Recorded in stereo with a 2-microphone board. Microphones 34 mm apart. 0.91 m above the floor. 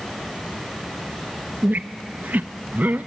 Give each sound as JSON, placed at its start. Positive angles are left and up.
{"t": 1.6, "sound": "a squeak", "side_deg": -60, "distance_m": 0.5}